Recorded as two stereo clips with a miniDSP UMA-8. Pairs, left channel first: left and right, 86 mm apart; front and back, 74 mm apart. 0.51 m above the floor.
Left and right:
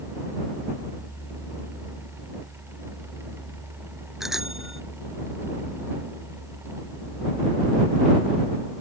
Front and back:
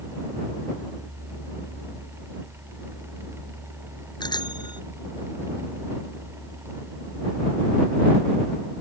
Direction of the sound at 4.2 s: 5° right.